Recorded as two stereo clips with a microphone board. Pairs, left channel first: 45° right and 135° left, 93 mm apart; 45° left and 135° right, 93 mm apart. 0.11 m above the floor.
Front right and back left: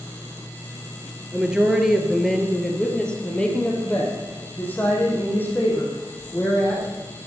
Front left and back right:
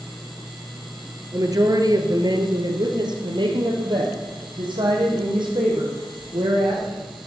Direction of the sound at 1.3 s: 150° right.